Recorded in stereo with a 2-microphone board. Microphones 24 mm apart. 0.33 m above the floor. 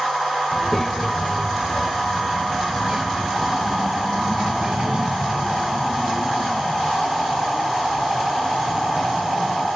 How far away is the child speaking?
About 1.1 m.